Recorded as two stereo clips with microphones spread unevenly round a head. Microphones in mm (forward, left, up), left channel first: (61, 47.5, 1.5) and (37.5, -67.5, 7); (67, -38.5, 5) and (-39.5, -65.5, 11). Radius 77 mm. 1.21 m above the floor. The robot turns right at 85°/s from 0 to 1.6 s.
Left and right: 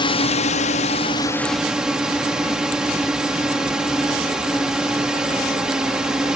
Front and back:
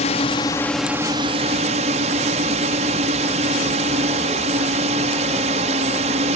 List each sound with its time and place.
0.0 s a drone: 35° left; by 6.4 s 175° left